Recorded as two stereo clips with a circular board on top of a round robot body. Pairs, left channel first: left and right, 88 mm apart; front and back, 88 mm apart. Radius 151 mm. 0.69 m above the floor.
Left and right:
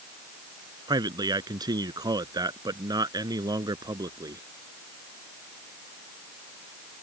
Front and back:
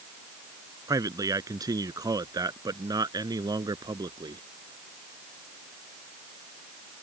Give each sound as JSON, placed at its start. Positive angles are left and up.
{"t": 0.9, "sound": "a man speaking", "azimuth_deg": -130}